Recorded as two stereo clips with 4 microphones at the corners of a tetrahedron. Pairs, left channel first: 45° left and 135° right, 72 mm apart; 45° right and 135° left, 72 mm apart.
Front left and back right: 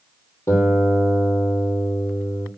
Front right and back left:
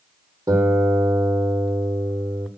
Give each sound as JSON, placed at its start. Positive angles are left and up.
{"t": 0.5, "sound": "a guitar", "azimuth_deg": 100, "distance_m": 3.0}